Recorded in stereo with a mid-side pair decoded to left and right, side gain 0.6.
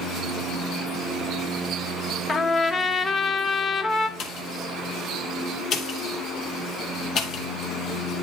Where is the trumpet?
35° left, 1.2 m.